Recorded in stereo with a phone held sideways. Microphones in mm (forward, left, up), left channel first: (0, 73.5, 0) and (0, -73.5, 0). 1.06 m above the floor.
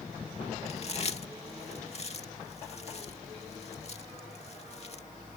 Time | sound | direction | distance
0.7 | chewing | 45° left (ahead or behind) | ?